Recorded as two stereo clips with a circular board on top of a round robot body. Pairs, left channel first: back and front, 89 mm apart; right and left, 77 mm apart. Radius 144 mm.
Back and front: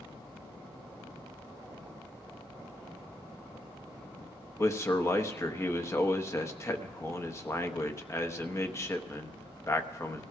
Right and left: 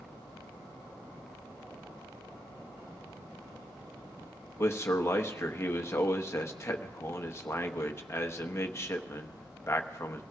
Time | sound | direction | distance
4.6 | a man speaking | 135° right | 1.2 m